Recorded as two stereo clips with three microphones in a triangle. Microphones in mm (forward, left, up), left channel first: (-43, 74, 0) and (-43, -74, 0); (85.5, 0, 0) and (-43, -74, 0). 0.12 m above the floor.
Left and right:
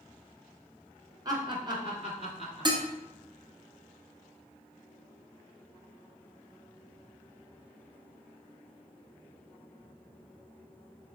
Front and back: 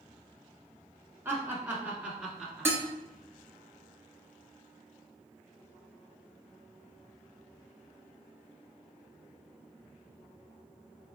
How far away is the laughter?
About 1.1 m.